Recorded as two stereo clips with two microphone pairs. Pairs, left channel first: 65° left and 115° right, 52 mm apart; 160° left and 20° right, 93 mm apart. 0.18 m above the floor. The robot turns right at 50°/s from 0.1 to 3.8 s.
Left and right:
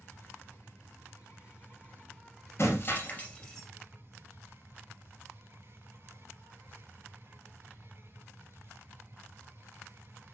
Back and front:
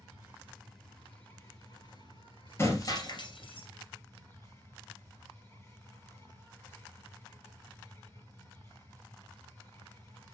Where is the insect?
35° left, 5 m; by 10.3 s 140° right, 5 m.